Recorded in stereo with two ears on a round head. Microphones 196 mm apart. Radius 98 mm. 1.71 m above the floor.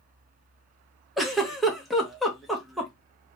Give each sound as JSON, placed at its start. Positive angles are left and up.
{"t": 1.2, "sound": "a giggle", "side_deg": 0, "distance_m": 0.5}